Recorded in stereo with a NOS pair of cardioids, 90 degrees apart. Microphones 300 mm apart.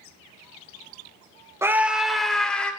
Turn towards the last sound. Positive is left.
turn(degrees=5)